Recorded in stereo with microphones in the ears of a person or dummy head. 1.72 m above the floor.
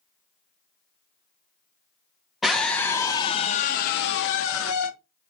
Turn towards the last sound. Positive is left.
turn(degrees=80)